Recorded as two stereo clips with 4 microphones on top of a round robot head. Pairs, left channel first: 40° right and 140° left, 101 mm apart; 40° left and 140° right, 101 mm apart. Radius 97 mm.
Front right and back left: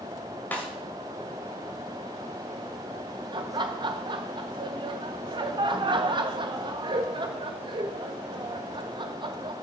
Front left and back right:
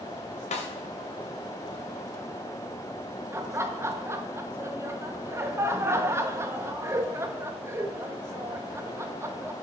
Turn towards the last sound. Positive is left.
turn(degrees=165)